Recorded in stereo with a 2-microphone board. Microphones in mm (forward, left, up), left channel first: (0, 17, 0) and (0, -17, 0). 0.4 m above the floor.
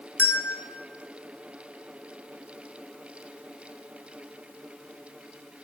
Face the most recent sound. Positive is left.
turn(degrees=75)  # may be behind; listen again after turning